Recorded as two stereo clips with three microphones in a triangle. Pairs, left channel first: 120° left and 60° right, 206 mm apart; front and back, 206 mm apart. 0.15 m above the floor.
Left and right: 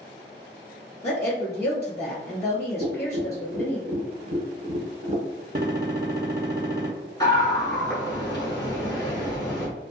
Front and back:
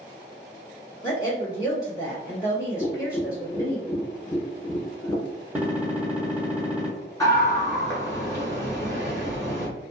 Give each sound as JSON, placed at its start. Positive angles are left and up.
{"t": 1.0, "sound": "a woman speaking", "azimuth_deg": 55, "distance_m": 1.4}
{"t": 2.8, "sound": "tapping", "azimuth_deg": -70, "distance_m": 0.9}
{"t": 5.5, "sound": "a gunshot", "azimuth_deg": -100, "distance_m": 0.8}
{"t": 7.2, "sound": "a scream", "azimuth_deg": 65, "distance_m": 1.5}